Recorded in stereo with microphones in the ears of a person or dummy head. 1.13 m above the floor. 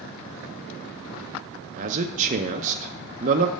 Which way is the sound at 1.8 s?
45° right (ahead or behind).